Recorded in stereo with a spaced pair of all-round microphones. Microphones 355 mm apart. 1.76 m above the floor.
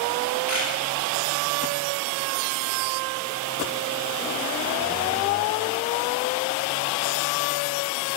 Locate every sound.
0.5 s a camera shutter: 40° left (ahead or behind), 10 m